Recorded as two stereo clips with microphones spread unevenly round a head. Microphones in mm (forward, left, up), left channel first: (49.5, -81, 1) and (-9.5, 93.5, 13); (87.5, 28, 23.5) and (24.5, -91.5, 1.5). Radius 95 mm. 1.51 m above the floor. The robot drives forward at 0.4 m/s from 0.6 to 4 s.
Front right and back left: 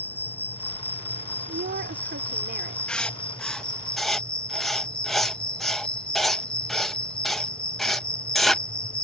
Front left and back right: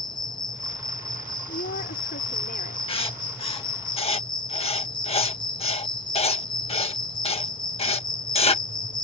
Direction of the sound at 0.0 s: 10° left.